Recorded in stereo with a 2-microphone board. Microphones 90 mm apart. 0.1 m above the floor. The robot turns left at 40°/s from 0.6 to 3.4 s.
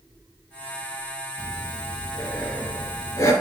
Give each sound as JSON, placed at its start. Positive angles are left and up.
{"t": 1.4, "sound": "breathing", "azimuth_deg": -165, "distance_m": 1.9}